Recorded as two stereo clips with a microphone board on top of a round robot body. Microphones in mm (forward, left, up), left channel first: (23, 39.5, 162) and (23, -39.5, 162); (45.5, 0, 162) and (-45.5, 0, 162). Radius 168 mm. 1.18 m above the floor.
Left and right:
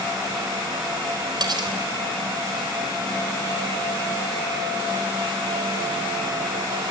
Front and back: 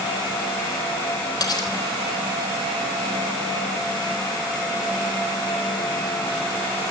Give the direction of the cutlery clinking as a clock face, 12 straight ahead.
2 o'clock.